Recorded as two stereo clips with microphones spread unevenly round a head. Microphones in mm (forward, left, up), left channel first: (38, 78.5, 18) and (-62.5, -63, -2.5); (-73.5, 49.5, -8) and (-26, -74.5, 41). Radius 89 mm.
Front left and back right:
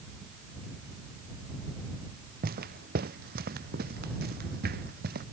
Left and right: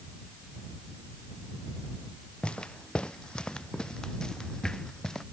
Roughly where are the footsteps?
Behind.